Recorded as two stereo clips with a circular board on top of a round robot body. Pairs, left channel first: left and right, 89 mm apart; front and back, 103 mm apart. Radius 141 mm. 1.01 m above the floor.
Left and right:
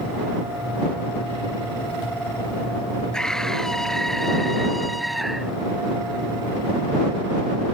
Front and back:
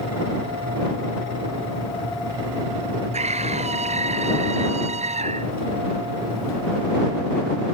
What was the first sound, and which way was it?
A scream, 175° left.